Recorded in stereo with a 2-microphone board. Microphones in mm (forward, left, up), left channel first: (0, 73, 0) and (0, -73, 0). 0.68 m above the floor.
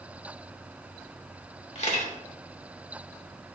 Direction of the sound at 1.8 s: 55° left (ahead or behind).